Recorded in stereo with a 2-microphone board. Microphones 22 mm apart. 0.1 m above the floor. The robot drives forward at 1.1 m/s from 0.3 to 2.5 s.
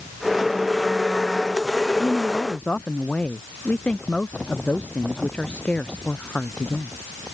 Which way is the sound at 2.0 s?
70° left (ahead or behind).